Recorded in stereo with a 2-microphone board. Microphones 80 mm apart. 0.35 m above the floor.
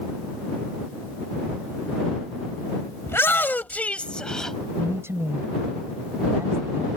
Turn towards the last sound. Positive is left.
turn(degrees=-35)  # may be behind; listen again after turning